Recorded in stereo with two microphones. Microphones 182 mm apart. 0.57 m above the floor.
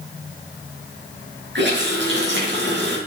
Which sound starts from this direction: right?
A running tap, at 1.6 s.